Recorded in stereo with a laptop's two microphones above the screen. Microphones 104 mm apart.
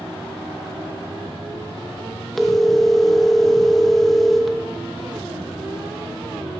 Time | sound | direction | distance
2.4 | a phone ringing | 5° left (ahead or behind) | 0.8 m